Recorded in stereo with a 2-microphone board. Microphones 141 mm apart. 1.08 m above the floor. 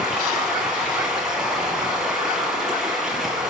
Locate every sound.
0.0 s running water: 5° right (ahead or behind), 7.5 m